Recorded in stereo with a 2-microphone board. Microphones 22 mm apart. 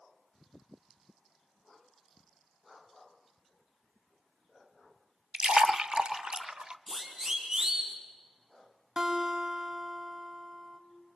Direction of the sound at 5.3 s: 40° right (ahead or behind).